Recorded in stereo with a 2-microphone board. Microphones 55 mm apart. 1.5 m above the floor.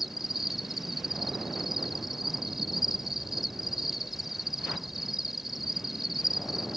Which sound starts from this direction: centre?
An insect, at 0.0 s.